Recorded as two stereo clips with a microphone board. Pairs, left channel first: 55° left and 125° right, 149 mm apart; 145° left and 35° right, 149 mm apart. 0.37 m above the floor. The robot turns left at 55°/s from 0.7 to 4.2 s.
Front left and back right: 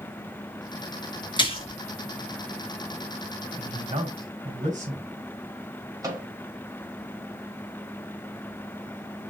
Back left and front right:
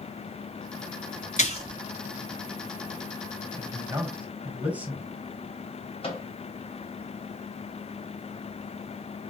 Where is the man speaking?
80° right, 2 m; by 5.1 s 110° right, 2 m.